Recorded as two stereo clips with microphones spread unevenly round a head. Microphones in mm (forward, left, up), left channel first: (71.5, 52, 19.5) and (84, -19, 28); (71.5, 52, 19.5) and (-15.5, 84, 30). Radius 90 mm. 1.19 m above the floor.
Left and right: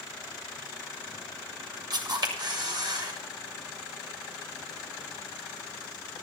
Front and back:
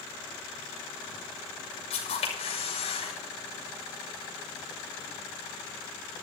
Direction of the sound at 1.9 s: 55° right.